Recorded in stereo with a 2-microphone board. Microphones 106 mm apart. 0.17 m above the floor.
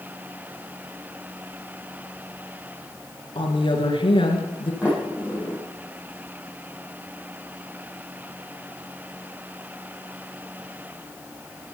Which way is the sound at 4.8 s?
10° right (ahead or behind).